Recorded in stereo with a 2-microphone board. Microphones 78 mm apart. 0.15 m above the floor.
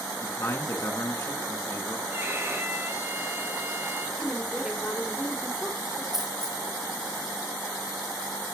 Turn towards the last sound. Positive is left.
turn(degrees=-5)  # may be behind; listen again after turning